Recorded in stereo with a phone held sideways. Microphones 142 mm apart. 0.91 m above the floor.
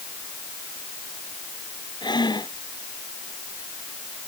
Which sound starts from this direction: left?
Breathing, at 2.0 s.